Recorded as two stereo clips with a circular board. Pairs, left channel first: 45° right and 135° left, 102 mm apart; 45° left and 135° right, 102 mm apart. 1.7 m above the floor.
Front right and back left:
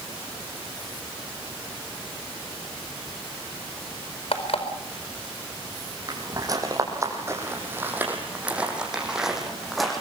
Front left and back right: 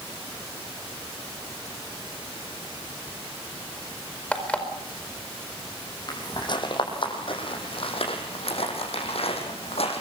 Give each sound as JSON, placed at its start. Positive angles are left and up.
{"t": 4.3, "sound": "an alarm clock", "azimuth_deg": -30, "distance_m": 4.5}
{"t": 6.1, "sound": "footsteps", "azimuth_deg": 90, "distance_m": 5.0}